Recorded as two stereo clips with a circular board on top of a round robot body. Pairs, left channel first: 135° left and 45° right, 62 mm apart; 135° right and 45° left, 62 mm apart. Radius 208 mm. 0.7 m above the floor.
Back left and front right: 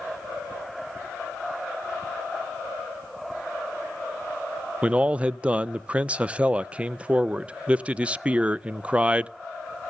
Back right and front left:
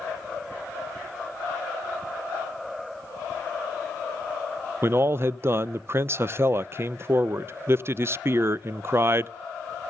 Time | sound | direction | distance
4.8 | a man speaking | 20° left | 0.6 m